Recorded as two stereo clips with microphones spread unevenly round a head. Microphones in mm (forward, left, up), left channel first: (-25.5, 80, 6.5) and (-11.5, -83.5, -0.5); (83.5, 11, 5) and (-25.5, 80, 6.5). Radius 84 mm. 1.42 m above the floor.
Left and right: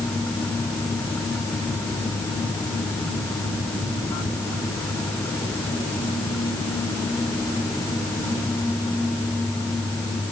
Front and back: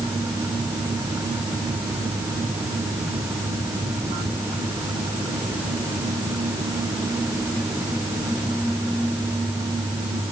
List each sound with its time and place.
Only background noise.